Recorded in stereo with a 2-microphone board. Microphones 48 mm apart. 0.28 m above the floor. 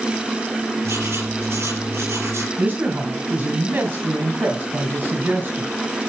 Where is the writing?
70° right (ahead or behind), 4 m.